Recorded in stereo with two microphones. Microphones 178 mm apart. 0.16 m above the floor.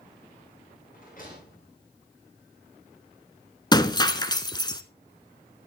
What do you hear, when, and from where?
0.9 s a rattle: 55° left (ahead or behind), 9 m
3.7 s breaking glass: 25° left (ahead or behind), 1.0 m